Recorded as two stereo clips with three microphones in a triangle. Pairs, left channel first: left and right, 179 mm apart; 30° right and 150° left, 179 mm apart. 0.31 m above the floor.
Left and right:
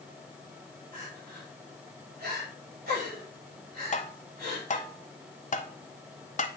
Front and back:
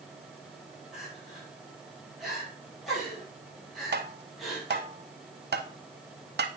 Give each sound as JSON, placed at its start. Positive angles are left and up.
{"t": 0.9, "sound": "crying", "azimuth_deg": -120, "distance_m": 5.5}
{"t": 3.9, "sound": "tapping", "azimuth_deg": 135, "distance_m": 0.6}